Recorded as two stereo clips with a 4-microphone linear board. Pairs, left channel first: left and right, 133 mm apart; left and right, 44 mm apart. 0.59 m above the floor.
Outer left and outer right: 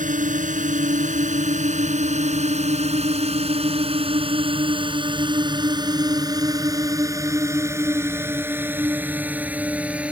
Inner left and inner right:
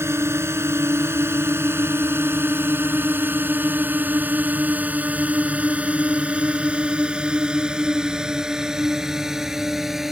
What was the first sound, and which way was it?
A drone, 75° right (ahead or behind).